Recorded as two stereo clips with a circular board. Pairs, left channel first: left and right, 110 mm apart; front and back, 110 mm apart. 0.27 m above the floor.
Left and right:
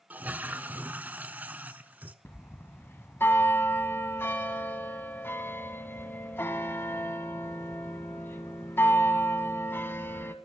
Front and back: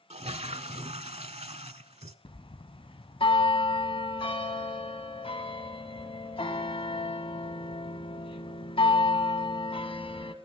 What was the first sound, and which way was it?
A toilet flushing, 165° right.